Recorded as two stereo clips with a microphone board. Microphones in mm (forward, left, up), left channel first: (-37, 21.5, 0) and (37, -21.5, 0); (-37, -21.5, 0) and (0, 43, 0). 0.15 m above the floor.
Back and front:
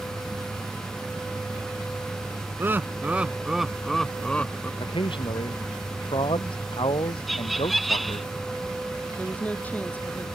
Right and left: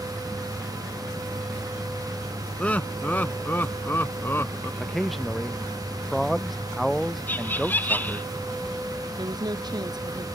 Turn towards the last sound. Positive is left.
turn(degrees=80)